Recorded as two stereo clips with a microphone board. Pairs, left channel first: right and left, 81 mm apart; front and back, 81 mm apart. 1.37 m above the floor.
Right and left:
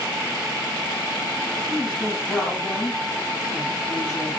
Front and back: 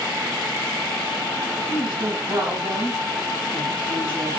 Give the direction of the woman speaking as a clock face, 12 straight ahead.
6 o'clock.